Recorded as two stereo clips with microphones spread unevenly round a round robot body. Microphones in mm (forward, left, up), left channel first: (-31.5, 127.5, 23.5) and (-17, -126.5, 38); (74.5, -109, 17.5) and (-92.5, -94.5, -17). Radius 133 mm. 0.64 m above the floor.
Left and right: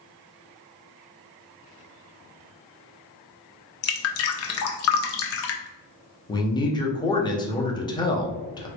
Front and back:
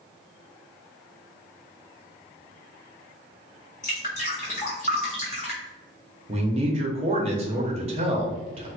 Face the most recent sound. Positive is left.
turn(degrees=155)